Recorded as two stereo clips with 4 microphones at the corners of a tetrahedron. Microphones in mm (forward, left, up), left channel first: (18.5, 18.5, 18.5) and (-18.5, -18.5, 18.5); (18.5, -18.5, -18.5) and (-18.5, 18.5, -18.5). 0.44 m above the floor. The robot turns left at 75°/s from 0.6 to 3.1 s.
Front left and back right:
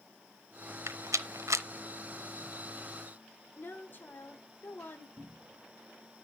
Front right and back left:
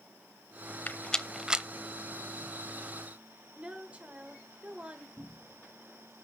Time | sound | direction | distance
0.9 | a rattle | 100° right | 0.7 m
3.6 | a woman speaking | 75° left | 1.5 m
5.2 | a cupboard door | 160° right | 3 m